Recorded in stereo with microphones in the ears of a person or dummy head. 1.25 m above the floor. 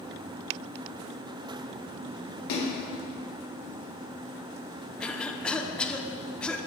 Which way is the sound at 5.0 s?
5° left (ahead or behind).